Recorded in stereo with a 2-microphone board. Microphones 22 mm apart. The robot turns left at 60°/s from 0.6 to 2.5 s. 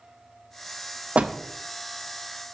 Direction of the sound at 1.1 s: 75° right (ahead or behind).